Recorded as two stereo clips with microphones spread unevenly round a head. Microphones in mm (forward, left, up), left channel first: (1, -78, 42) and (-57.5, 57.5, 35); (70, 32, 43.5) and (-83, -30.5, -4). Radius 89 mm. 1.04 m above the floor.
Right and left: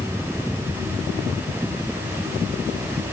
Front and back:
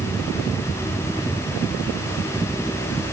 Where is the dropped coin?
No dropped coin in this recording.